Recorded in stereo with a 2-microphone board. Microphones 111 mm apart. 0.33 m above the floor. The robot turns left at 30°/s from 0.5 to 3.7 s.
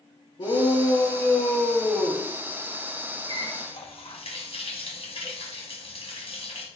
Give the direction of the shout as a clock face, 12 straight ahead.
10 o'clock.